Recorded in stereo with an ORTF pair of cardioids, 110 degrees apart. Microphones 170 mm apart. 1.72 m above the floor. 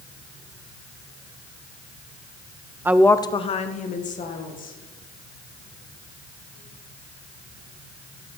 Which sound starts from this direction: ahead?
A woman speaking, at 2.9 s.